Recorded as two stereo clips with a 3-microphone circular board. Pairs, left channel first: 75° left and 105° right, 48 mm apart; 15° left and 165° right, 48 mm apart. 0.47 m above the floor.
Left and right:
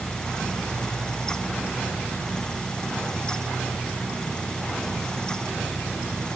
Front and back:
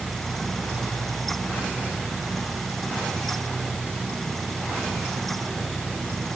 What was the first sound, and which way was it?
Only background noise.